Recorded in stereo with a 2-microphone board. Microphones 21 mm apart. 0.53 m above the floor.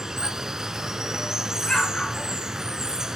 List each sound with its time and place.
0.0 s running water: 30° right (ahead or behind), 1.1 m
1.6 s an explosion: 40° left (ahead or behind), 4.5 m